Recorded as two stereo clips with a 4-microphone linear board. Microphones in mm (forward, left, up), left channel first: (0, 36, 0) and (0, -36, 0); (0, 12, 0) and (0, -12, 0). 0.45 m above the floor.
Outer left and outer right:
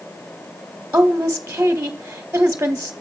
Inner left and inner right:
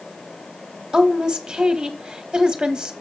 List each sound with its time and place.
0.9 s a woman speaking: 25° right (ahead or behind), 1.1 m